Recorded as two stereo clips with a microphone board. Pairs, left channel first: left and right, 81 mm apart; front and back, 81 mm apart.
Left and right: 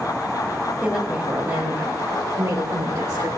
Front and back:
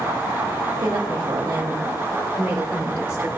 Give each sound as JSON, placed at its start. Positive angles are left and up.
{"t": 0.8, "sound": "a woman speaking", "azimuth_deg": -175, "distance_m": 2.0}